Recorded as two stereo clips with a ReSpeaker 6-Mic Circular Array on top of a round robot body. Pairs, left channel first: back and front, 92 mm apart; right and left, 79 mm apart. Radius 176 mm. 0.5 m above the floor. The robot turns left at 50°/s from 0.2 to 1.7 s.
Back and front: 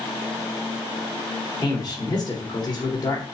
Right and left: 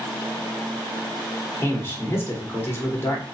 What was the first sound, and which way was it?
A man speaking, 140° right.